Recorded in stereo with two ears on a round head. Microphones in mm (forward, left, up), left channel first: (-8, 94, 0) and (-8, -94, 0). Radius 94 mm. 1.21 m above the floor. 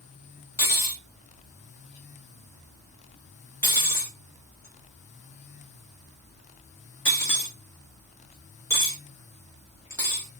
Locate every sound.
0.6 s cutlery clinking: 10° left (ahead or behind), 1.1 m